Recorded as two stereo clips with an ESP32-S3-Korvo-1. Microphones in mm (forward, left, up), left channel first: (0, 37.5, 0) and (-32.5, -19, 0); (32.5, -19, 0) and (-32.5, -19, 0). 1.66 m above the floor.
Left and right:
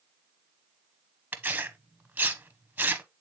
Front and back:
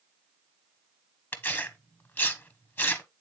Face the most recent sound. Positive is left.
turn(degrees=-55)